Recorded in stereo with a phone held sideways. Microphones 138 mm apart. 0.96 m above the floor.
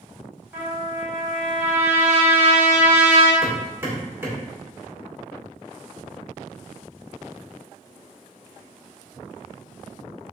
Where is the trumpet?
15° right (ahead or behind), 1.9 m.